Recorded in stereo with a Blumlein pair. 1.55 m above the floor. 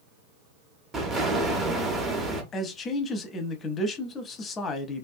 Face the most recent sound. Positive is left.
turn(degrees=25)